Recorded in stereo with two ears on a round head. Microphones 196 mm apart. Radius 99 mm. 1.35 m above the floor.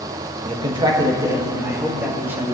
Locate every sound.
0.5 s a man speaking: 25° right (ahead or behind), 1.5 m; by 2.5 s 10° right (ahead or behind), 2.5 m